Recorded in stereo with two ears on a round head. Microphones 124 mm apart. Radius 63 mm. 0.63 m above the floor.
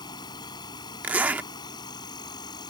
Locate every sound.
0.0 s an insect: 30° left (ahead or behind)
1.0 s a zipper: 10° right (ahead or behind)